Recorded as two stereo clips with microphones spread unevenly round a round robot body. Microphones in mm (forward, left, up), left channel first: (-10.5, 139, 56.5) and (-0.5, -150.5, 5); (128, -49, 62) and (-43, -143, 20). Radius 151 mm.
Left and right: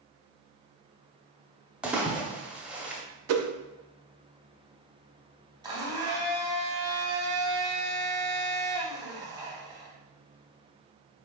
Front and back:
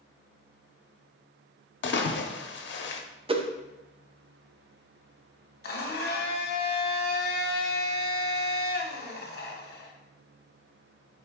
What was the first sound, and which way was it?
A splash, 5° right.